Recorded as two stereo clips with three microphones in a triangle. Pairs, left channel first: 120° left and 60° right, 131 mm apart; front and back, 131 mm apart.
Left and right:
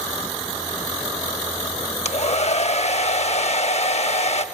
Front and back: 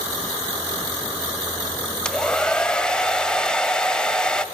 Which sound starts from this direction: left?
A hair dryer, at 2.0 s.